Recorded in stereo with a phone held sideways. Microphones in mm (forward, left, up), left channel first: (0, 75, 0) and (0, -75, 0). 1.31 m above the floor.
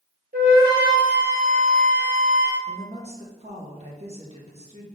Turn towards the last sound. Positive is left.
turn(degrees=-40)  # may be behind; listen again after turning